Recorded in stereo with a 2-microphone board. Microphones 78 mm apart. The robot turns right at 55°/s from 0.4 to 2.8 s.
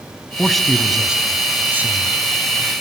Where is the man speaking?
5° left (ahead or behind), 1.0 m; by 2.1 s 25° right (ahead or behind), 1.0 m.